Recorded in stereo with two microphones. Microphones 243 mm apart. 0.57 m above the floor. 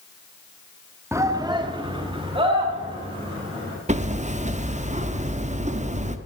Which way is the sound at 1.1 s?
10° right (ahead or behind).